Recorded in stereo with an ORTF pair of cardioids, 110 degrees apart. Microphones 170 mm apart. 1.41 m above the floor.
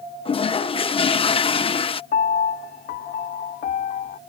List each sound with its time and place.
0.2 s a toilet flushing: 35° left
2.1 s a piano: 60° left